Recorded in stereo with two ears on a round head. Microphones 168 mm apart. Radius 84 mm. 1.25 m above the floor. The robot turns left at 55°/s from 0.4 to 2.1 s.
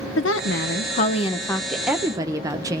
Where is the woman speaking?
75° left, 0.6 m; by 2.8 s 20° right, 0.6 m.